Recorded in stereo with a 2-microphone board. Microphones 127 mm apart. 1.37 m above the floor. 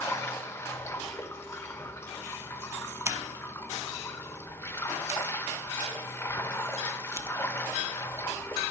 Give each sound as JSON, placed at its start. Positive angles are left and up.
{"t": 0.0, "sound": "running water", "side_deg": 20, "distance_m": 1.1}
{"t": 3.0, "sound": "scissors", "side_deg": -20, "distance_m": 0.9}